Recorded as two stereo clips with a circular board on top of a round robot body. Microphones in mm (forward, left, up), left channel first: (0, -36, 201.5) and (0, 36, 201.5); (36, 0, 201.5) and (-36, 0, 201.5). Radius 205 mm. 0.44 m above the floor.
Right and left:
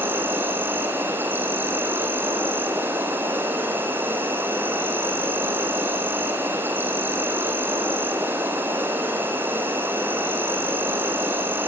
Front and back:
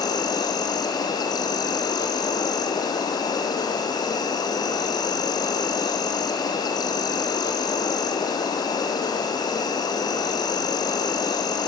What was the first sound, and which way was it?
An insect, 25° left.